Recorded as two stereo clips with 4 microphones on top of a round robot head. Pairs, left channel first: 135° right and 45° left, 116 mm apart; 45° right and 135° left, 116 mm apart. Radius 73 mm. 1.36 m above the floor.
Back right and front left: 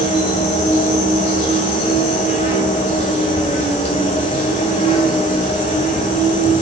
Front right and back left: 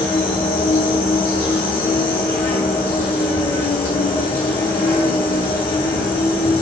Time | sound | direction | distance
0.0 | an insect | 115° right | 4 m